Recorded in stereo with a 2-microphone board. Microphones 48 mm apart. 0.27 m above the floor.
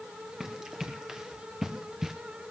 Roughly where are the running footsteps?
Centre.